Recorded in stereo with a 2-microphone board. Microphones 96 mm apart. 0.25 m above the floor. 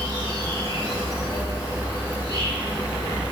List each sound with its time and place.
0.0 s an insect: 40° right (ahead or behind), 1.7 m